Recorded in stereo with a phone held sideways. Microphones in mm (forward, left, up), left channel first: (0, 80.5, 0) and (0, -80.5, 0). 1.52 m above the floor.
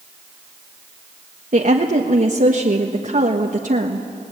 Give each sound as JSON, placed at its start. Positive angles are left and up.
{"t": 1.5, "sound": "a woman speaking", "side_deg": -55, "distance_m": 1.4}